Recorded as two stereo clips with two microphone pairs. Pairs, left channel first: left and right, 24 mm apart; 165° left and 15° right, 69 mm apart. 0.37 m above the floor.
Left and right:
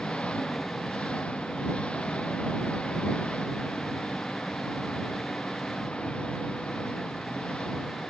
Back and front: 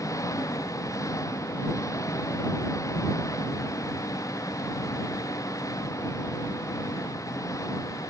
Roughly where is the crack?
I don't hear a crack.